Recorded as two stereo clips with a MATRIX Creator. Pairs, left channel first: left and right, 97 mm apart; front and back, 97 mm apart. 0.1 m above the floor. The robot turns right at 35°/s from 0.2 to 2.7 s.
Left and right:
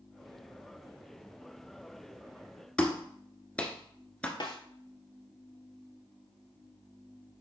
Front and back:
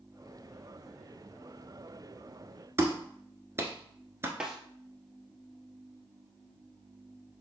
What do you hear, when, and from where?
2.8 s a clap: 155° left, 1.1 m
4.4 s a snare drum: 100° left, 1.3 m